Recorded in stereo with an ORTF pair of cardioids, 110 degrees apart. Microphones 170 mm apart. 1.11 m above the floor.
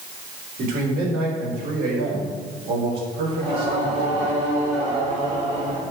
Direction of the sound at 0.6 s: 55° right.